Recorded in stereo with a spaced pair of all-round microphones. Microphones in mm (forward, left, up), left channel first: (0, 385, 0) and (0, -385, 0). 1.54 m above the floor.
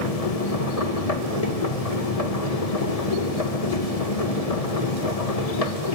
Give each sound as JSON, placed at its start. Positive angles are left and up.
{"t": 0.0, "sound": "a machine running", "side_deg": 50, "distance_m": 1.9}